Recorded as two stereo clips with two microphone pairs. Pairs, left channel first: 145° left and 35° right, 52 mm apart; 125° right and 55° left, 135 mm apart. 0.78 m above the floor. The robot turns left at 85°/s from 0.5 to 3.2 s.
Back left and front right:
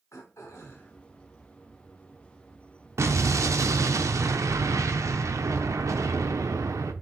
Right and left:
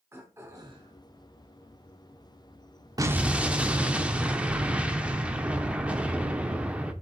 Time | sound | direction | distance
0.1 | throat clearing | 125° left | 1.6 m
3.0 | an explosion | 5° right | 0.7 m